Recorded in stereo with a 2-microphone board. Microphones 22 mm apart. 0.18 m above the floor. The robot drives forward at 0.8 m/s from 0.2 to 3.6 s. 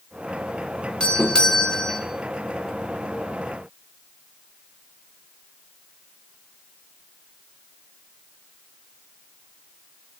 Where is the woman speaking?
I don't hear a woman speaking.